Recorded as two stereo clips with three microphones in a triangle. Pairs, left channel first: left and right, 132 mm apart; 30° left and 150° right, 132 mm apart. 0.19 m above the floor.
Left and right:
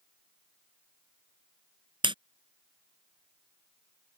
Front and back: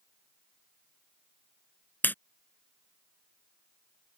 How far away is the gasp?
No gasp in this recording.